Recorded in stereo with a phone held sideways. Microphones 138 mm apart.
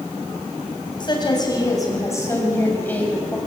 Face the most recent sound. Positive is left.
turn(degrees=10)  # may be behind; listen again after turning